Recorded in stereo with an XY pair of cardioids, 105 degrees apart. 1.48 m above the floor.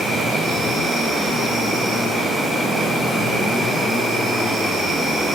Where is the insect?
65° right, 0.9 m.